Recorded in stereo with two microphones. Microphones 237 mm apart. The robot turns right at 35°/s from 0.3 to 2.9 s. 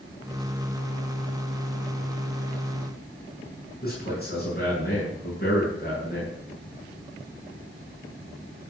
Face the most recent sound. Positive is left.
turn(degrees=40)  # may be behind; listen again after turning